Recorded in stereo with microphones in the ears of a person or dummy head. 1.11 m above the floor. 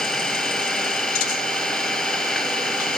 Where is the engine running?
5° left (ahead or behind).